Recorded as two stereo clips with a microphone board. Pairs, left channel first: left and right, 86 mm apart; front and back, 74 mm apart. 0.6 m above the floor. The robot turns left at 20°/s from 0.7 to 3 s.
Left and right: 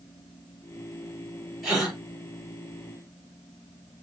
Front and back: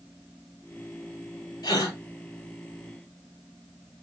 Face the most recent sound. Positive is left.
turn(degrees=-25)